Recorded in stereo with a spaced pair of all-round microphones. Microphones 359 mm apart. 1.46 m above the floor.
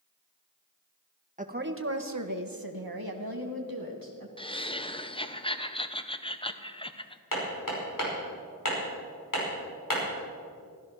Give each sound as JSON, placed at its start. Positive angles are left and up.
{"t": 1.4, "sound": "a woman speaking", "side_deg": -20, "distance_m": 1.3}
{"t": 4.4, "sound": "laughter", "side_deg": 15, "distance_m": 0.9}
{"t": 7.3, "sound": "hammering", "side_deg": 60, "distance_m": 5.0}